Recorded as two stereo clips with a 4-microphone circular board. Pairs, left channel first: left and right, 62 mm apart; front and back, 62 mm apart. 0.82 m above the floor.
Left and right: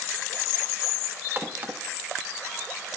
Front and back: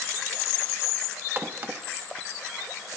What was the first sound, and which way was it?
A crack, 135° right.